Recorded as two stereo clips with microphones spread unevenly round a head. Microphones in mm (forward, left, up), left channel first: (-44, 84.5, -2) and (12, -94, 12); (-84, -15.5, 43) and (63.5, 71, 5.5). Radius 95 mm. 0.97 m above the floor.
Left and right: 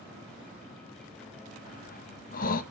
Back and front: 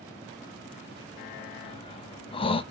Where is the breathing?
145° left, 0.8 m.